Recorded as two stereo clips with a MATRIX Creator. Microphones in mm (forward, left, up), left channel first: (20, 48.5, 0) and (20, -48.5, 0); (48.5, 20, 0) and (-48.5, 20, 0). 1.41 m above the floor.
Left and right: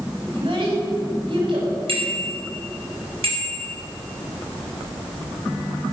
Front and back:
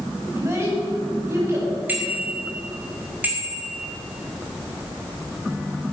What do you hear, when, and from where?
0.3 s a child speaking: 120° right, 5 m
1.9 s a bicycle bell: 105° right, 5 m